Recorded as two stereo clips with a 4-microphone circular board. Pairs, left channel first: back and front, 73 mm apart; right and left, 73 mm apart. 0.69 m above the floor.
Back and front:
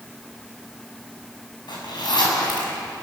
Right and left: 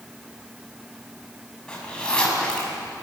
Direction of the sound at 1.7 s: 170° right.